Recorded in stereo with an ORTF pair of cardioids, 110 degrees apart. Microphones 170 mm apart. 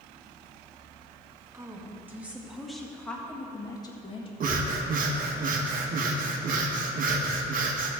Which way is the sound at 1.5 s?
20° right.